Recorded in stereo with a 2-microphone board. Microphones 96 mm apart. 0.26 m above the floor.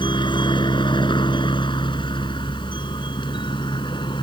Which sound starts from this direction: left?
A helicopter, at 0.0 s.